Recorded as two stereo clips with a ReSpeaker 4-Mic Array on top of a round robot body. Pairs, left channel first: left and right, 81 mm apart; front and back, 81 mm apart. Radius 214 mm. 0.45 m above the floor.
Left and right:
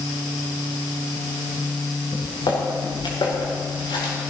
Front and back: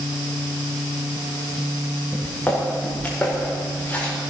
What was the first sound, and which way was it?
Footsteps, 70° left.